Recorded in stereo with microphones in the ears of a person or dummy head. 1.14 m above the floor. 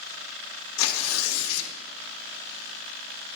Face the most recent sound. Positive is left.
turn(degrees=70)  # may be behind; listen again after turning